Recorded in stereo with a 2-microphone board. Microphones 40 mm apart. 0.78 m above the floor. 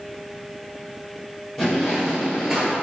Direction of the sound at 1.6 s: Centre (ahead or behind).